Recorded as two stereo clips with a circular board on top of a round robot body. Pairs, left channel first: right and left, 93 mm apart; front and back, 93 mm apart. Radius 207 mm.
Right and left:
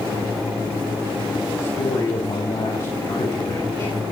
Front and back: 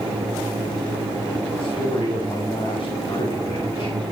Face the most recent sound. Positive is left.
turn(degrees=-45)